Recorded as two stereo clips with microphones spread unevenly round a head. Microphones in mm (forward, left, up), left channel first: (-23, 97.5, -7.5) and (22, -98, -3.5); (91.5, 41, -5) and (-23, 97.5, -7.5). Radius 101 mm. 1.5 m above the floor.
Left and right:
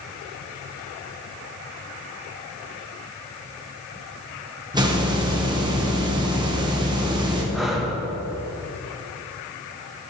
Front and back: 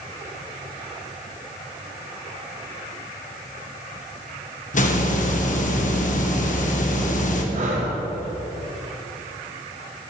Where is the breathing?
165° right, 1.1 m.